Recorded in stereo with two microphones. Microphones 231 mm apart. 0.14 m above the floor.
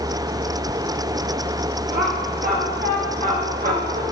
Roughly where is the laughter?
Right.